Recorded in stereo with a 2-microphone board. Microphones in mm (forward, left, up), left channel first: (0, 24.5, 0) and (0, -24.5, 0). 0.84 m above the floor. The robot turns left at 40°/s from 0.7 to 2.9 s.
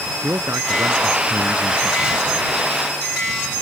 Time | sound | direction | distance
0.2 | a man speaking | 115° right | ?